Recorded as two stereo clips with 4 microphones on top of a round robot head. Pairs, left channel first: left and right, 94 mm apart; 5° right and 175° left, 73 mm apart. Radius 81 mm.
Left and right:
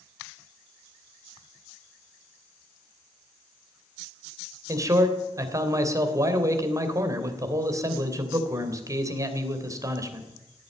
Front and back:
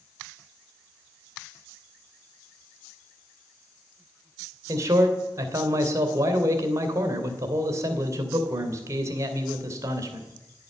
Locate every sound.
4.7 s a man speaking: 140° right, 3 m